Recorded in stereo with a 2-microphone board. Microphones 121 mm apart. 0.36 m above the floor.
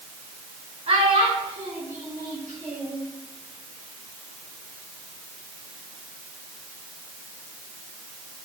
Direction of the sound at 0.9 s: 60° right (ahead or behind).